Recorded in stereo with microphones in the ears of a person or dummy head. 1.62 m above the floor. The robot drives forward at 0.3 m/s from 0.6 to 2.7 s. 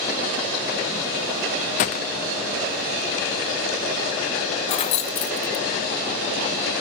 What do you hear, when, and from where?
1.8 s a gunshot: 30° left (ahead or behind), 0.8 m
4.7 s keys jangling: 35° left (ahead or behind), 0.9 m